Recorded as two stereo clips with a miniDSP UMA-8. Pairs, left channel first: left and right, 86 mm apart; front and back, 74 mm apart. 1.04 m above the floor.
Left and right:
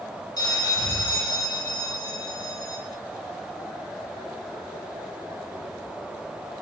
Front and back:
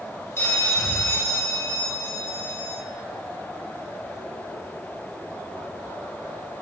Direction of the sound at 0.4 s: 55° left.